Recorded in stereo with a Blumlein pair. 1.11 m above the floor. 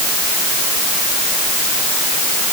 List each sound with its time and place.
Only background noise.